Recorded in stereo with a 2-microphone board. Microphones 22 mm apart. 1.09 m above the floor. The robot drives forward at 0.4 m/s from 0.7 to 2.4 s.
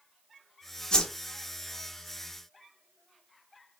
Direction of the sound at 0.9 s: 35° left (ahead or behind).